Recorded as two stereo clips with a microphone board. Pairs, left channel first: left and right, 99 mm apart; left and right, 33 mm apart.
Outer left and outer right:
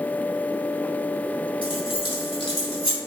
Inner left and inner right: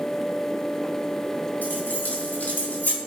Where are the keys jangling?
70° left (ahead or behind), 3.5 m; by 3.0 s 75° left (ahead or behind), 2.5 m.